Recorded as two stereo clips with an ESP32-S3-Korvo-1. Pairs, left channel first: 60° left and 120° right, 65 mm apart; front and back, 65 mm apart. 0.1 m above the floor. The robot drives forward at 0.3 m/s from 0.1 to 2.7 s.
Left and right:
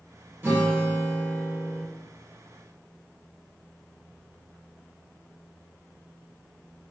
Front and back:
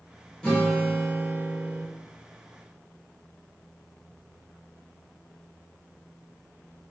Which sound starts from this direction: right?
A guitar, at 0.4 s.